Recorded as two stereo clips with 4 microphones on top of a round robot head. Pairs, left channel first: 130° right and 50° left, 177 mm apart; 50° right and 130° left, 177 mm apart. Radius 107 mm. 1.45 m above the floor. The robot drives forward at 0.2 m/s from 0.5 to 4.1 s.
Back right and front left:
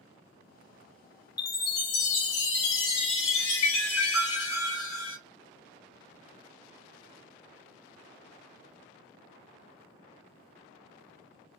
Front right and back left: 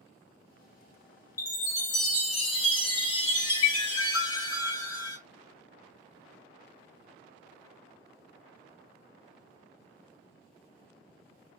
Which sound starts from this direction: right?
A chime, at 1.4 s.